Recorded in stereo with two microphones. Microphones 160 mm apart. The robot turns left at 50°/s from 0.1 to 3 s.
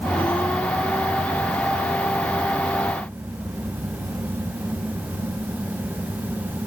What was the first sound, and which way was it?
Only background noise.